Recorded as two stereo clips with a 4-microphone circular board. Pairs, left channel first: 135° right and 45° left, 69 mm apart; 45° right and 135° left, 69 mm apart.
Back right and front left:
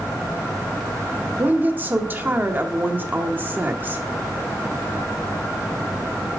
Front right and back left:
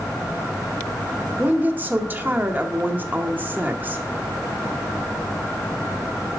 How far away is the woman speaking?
About 1.0 m.